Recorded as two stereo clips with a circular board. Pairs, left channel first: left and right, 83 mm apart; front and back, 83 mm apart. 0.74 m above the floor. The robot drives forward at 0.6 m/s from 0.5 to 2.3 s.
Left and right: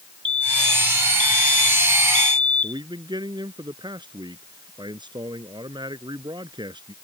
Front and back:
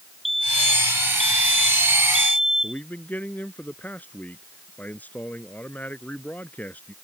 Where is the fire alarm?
90° right; by 2.8 s 95° right.